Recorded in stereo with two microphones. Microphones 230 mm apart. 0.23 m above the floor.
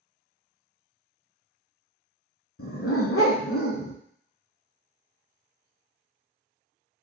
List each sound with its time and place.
2.6 s a dog barking: 70° left (ahead or behind), 0.6 m